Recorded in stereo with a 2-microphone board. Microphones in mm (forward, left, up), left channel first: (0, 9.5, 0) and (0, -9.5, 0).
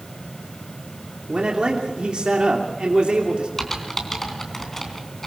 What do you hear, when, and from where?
1.3 s a man speaking: 55° right (ahead or behind), 2.5 m
3.6 s typing on a keyboard: 20° left (ahead or behind), 3 m